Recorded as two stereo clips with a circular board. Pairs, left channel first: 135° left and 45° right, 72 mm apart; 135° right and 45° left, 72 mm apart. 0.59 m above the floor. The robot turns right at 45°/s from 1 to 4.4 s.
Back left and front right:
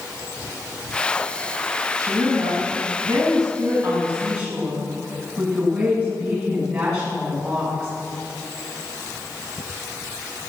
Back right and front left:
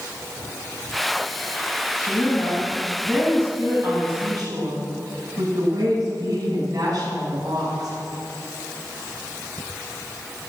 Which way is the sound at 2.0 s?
100° right.